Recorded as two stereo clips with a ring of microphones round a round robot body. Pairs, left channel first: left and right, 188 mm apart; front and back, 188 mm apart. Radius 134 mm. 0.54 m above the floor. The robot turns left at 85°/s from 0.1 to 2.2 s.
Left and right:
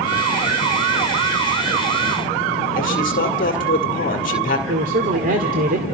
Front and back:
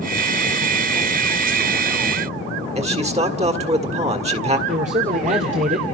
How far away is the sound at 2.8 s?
About 1.9 m.